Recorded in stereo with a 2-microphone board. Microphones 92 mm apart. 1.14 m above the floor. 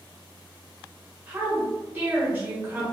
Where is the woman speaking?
25° right (ahead or behind), 1.2 m.